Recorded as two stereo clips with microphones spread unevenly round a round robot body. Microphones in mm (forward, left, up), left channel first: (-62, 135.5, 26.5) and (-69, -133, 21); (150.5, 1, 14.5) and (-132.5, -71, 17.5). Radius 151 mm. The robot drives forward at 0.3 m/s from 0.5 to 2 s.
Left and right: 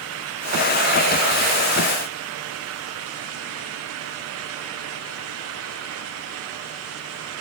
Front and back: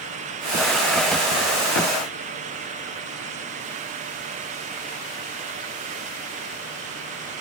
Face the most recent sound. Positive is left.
No sound to turn to.